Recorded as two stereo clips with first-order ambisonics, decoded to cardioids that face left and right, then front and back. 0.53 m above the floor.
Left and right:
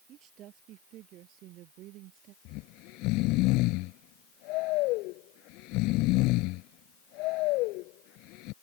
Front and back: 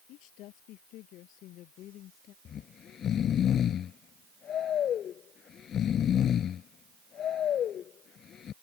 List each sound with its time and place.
0.1 s a woman speaking: 40° right; by 2.4 s 50° right
2.5 s snoring: 60° left